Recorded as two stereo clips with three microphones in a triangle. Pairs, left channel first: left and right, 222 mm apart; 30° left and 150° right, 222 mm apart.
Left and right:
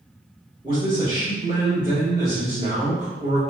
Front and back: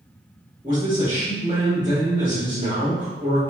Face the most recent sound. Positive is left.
turn(degrees=-110)